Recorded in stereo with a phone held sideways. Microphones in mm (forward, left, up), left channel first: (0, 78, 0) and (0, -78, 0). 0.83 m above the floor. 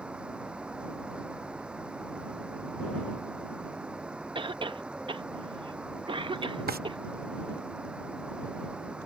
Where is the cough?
35° right (ahead or behind).